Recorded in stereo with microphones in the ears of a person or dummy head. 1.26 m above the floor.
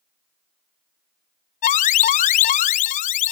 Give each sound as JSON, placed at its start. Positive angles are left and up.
{"t": 1.6, "sound": "an alarm", "side_deg": 40, "distance_m": 0.5}